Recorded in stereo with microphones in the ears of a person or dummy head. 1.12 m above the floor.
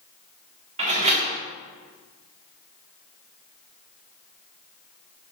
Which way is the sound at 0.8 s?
40° right (ahead or behind).